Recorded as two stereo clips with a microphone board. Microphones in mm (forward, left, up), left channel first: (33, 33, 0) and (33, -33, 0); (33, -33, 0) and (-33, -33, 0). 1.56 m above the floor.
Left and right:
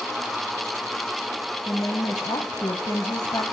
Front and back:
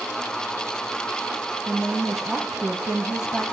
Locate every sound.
1.7 s a woman speaking: 80° left, 0.8 m